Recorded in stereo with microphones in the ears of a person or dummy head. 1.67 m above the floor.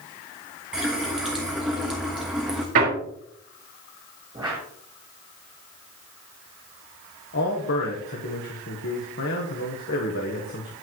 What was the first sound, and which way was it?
A running tap, 5° right (ahead or behind).